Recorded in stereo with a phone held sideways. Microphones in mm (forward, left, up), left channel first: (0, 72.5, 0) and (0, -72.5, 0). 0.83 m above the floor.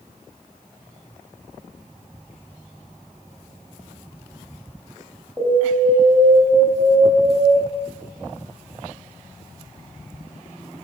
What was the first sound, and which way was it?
An alarm, 20° right (ahead or behind).